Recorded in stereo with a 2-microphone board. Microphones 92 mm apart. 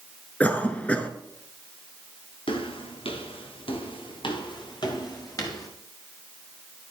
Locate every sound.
0.4 s a cough: 15° left (ahead or behind), 1.2 m
2.5 s footsteps: 70° left (ahead or behind), 3 m; by 5.7 s 45° left (ahead or behind), 4 m